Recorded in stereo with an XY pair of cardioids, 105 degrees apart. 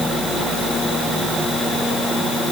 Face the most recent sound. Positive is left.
No sound to turn to.